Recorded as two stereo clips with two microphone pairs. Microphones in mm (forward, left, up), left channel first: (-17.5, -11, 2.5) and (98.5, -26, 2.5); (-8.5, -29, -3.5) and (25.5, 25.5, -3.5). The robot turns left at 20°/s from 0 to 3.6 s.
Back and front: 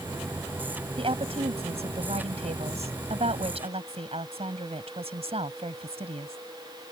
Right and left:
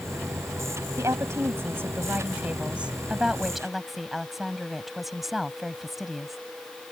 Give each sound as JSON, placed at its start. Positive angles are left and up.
{"t": 1.0, "sound": "a woman speaking", "azimuth_deg": 25}